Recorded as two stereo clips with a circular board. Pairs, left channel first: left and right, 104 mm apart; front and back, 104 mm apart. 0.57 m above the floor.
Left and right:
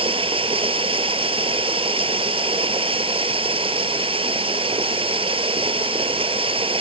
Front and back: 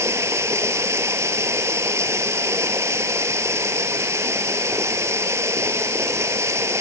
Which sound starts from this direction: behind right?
Running water, at 0.0 s.